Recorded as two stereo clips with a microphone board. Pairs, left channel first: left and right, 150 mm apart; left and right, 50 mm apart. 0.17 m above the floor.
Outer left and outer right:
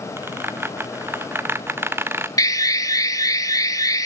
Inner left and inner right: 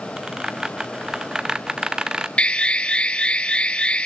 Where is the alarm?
25° left (ahead or behind), 1.2 m.